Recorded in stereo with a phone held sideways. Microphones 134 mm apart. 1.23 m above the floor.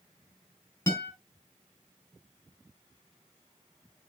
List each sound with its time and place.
0.9 s a guitar: 15° left (ahead or behind), 5.5 m